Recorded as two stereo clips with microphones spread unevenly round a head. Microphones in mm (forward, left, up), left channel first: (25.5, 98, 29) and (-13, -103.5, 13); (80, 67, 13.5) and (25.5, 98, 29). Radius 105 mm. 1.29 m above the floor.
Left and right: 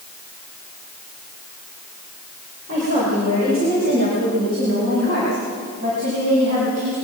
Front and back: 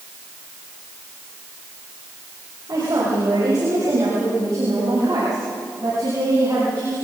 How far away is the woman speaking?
About 5.5 m.